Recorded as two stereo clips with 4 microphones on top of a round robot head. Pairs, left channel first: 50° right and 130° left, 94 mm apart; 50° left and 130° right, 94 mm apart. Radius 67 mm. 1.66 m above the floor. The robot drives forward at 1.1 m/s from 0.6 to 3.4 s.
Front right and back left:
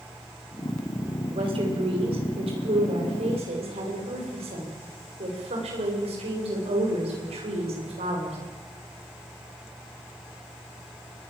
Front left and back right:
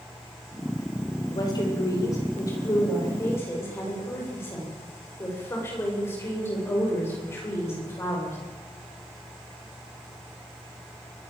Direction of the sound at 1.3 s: 100° left.